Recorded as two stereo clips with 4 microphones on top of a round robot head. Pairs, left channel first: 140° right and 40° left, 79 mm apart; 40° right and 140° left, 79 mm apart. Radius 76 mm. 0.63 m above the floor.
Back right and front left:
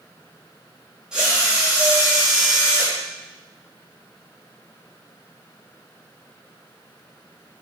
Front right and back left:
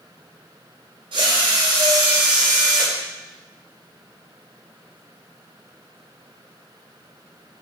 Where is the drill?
125° left, 3.5 m.